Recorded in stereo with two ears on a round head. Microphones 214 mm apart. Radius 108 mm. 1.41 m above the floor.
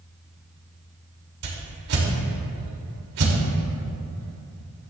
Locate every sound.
1.4 s a whoosh: 65° right (ahead or behind), 2.5 m